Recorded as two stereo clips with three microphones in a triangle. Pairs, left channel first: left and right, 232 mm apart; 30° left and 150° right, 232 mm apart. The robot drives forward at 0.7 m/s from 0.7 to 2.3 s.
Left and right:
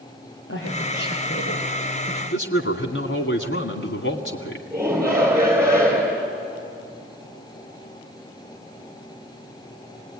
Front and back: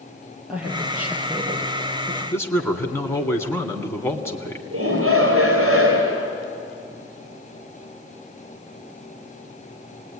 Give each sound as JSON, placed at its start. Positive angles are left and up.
{"t": 0.5, "sound": "a woman speaking", "azimuth_deg": 125, "distance_m": 6.0}
{"t": 2.3, "sound": "a man speaking", "azimuth_deg": 110, "distance_m": 2.0}
{"t": 4.7, "sound": "a shout", "azimuth_deg": -170, "distance_m": 3.5}